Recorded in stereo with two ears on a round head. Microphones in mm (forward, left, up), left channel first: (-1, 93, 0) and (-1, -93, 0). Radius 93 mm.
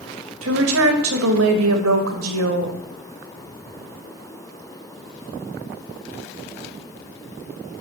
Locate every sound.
0.4 s a woman speaking: 80° right, 1.7 m